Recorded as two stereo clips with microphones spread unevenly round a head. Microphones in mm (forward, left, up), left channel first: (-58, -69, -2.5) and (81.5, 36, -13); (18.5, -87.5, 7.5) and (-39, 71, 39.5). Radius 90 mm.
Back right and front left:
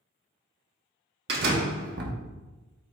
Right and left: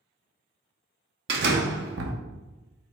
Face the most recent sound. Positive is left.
turn(degrees=75)